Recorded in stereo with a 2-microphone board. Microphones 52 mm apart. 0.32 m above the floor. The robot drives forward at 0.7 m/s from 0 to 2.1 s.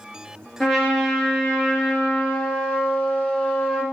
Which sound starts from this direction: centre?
A trumpet, at 0.6 s.